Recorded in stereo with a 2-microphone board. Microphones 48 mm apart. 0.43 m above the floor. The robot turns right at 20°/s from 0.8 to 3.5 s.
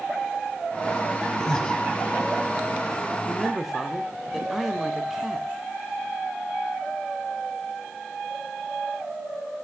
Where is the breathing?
10° left (ahead or behind), 1.1 m; by 1.8 s 20° left (ahead or behind), 1.1 m.